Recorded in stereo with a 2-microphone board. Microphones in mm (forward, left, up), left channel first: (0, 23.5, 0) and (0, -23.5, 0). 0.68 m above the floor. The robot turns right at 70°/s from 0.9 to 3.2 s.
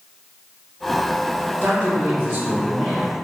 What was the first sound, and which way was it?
A man speaking, 120° right.